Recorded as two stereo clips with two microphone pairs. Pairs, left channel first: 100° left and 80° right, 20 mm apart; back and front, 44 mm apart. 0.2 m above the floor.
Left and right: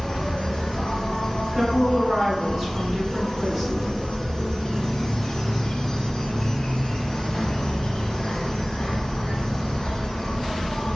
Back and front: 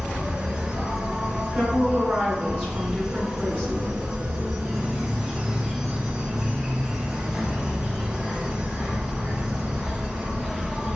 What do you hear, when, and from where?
0.0 s an insect: 80° left, 1.0 m
1.5 s a woman speaking: 45° right, 1.9 m